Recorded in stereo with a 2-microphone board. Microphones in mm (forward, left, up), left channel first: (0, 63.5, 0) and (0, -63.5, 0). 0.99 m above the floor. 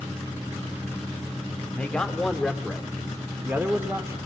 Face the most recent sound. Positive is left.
turn(degrees=-25)  # may be behind; listen again after turning